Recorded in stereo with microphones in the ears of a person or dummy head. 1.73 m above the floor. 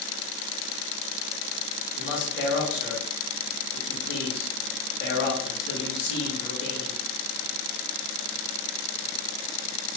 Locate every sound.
1.9 s a man speaking: 60° left (ahead or behind), 2.5 m